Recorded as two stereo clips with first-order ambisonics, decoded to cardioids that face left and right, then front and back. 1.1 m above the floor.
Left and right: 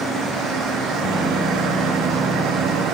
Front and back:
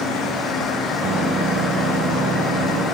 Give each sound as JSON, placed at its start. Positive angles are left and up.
{"t": 1.0, "sound": "a microwave", "azimuth_deg": -170, "distance_m": 1.3}